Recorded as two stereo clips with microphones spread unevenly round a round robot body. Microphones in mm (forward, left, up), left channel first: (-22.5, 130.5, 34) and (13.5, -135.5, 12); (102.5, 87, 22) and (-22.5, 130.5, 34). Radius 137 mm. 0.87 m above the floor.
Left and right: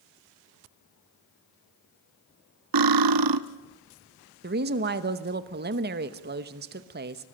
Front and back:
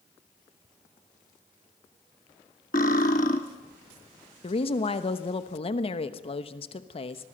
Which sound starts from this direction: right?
Cutlery clinking, at 2.7 s.